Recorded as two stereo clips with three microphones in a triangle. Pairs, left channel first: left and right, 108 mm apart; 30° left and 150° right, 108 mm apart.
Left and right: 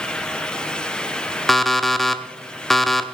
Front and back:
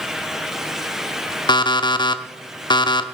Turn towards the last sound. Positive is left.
turn(degrees=5)